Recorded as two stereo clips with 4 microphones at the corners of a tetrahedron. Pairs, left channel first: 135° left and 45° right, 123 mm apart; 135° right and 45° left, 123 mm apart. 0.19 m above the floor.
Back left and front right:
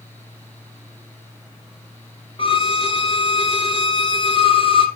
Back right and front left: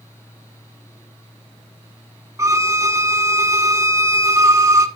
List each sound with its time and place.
2.4 s a violin: 105° left, 1.1 m